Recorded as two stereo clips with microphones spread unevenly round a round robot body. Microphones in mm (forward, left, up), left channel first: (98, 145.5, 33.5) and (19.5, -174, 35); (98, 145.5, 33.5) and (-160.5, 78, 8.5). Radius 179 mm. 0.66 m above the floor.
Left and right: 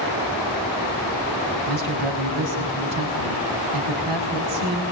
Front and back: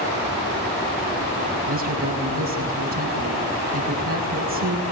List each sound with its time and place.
1.7 s a man speaking: 115° right, 5.5 m